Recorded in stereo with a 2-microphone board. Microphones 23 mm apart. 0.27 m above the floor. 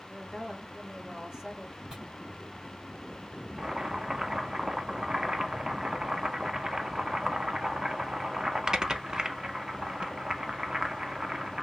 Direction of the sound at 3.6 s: 35° right (ahead or behind).